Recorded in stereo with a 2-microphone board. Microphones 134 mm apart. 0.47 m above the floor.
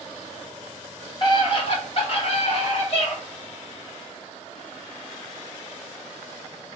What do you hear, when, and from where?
1.2 s a scream: 35° left (ahead or behind), 1.2 m; by 3.1 s 50° left (ahead or behind), 2 m